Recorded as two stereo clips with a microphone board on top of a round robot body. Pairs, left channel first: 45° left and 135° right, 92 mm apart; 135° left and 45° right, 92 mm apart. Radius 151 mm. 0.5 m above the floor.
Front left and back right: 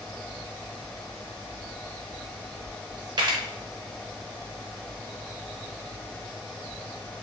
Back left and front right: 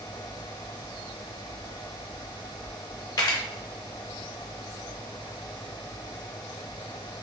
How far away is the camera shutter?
About 0.5 m.